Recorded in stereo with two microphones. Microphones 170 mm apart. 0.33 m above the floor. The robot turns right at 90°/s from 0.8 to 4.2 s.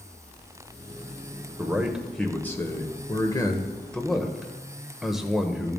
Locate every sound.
1.6 s a man speaking: 15° right (ahead or behind), 0.8 m; by 5.8 s centre (ahead or behind), 0.8 m